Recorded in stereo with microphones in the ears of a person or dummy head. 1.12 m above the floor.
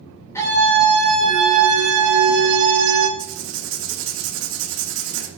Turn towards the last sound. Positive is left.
turn(degrees=-70)  # may be behind; listen again after turning